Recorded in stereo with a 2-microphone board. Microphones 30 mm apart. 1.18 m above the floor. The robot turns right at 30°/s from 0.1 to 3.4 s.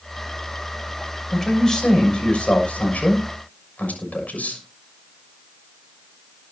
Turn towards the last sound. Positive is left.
turn(degrees=75)